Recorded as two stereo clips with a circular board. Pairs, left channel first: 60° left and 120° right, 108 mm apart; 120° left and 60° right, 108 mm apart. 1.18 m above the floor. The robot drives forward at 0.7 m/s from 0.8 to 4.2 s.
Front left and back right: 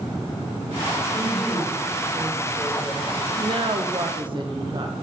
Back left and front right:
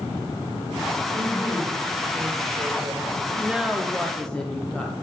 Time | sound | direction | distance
1.1 | a woman speaking | 10° right | 3 m
3.4 | a woman speaking | 130° right | 0.6 m